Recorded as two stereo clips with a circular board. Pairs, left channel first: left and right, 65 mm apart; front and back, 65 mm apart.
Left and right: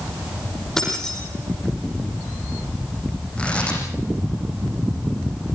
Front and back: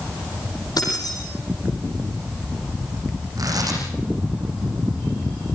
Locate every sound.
0.8 s keys jangling: 10° left, 9.5 m
3.4 s tearing paper: 165° left, 7.5 m